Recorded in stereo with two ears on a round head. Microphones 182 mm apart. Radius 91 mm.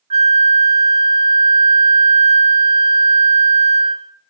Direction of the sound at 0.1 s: 30° right (ahead or behind).